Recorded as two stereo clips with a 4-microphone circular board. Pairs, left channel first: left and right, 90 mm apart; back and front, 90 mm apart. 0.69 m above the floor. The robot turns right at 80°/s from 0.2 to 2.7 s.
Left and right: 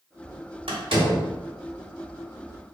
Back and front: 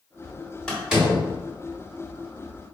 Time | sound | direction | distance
0.7 | a door slam | 100° right | 1.2 m